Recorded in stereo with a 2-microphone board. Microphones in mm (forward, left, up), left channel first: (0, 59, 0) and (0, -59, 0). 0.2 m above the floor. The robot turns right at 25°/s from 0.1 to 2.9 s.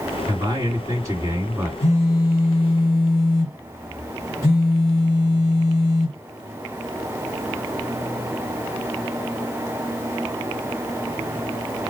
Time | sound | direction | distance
0.3 | a man speaking | 65° right | 2 m
1.8 | a phone buzzing | 30° right (ahead or behind) | 1.6 m